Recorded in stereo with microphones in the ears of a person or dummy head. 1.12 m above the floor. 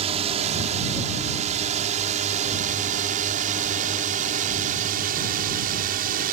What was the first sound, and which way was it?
A drone, 35° right (ahead or behind).